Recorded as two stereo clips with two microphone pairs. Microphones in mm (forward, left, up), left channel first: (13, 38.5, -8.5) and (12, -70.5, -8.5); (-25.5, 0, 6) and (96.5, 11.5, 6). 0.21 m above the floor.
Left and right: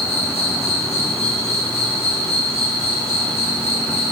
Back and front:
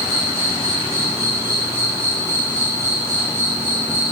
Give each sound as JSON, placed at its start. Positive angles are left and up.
{"t": 0.0, "sound": "an insect", "azimuth_deg": 75, "distance_m": 7.5}